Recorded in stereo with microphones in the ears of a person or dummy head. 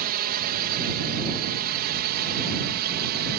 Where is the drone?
45° right (ahead or behind); by 3.4 s 50° right (ahead or behind).